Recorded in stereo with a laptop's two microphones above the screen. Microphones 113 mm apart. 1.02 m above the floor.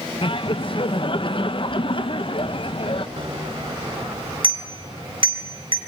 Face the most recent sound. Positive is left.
turn(degrees=-50)  # may be behind; listen again after turning